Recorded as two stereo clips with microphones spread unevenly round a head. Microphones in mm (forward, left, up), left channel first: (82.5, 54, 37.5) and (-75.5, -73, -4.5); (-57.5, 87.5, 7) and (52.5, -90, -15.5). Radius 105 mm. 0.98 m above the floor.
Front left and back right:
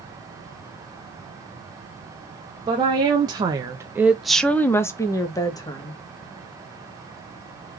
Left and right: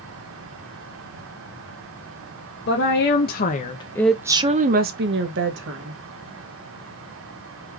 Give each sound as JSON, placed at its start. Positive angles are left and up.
{"t": 2.7, "sound": "a woman speaking", "azimuth_deg": 160, "distance_m": 1.1}